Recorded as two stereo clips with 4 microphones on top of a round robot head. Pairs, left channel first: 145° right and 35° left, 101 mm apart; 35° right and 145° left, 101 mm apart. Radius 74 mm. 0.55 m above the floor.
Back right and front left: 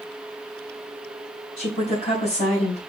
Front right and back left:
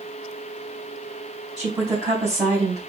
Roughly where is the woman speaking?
Behind right.